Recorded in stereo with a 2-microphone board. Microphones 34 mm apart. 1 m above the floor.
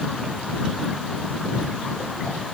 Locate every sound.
Only background noise.